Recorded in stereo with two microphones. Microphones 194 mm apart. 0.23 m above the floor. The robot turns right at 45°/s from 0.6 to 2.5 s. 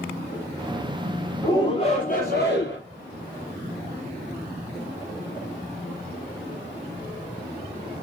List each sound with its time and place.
1.4 s a shout: 25° left, 4.5 m; by 2.8 s 75° left, 4.5 m